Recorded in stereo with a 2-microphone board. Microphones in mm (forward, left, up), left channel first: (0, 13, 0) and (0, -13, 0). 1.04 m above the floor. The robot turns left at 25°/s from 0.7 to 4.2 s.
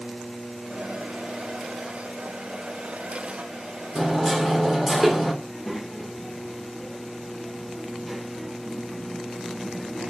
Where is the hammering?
15° right (ahead or behind), 1.5 m; by 5.3 s 10° right (ahead or behind), 1.5 m.